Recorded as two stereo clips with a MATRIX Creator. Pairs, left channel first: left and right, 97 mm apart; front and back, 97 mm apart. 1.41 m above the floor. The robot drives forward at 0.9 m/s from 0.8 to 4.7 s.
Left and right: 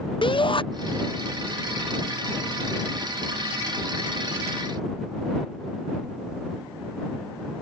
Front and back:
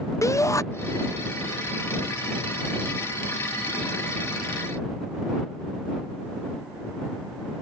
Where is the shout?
60° left.